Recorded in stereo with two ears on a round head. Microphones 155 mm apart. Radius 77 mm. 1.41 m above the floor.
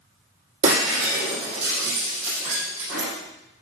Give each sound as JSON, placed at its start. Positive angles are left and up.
{"t": 0.6, "sound": "breaking glass", "side_deg": -45, "distance_m": 6.0}